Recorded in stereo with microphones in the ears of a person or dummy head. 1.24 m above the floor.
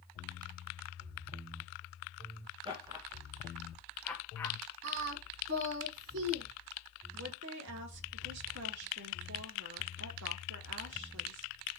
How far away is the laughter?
About 1.1 m.